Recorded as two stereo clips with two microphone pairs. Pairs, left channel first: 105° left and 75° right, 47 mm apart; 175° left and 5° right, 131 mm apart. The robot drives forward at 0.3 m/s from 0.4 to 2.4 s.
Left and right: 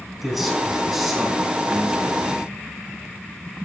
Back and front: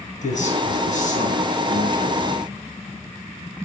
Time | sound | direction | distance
0.2 | a man speaking | 165° right | 4 m